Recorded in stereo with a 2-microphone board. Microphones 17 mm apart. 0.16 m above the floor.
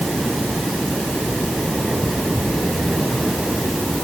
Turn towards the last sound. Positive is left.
No sound to turn to.